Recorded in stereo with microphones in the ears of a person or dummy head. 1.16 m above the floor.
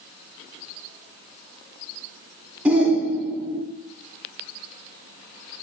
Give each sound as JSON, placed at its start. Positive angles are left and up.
{"t": 2.6, "sound": "a shout", "side_deg": -10, "distance_m": 2.0}